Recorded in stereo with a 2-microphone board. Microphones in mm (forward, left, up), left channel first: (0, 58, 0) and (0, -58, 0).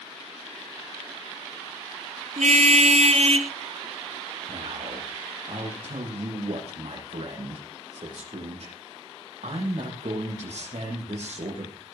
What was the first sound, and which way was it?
A car horn, 80° right.